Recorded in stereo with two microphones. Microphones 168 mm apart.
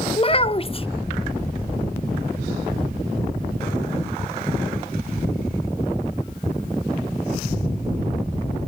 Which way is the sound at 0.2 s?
35° left (ahead or behind).